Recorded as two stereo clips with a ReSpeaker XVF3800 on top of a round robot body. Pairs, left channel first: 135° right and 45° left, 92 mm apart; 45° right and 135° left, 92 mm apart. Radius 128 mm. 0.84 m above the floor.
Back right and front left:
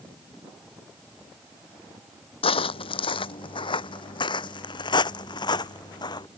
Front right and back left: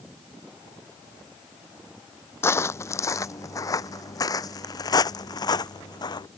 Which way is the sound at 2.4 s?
110° right.